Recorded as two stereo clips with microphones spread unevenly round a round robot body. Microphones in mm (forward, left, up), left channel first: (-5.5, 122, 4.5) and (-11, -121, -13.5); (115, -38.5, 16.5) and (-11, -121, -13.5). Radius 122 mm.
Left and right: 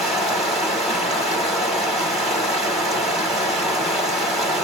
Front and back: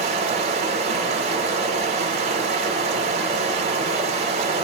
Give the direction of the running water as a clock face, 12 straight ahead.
6 o'clock.